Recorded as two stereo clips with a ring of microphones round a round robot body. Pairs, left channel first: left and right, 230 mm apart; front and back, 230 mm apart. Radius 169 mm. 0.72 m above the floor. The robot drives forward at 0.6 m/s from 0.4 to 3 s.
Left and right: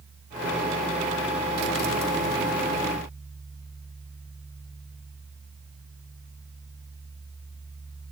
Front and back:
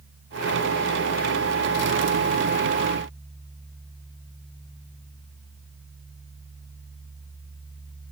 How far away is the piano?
I don't hear a piano.